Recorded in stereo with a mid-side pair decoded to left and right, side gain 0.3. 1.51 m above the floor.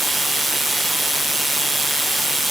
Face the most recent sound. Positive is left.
No sound to turn to.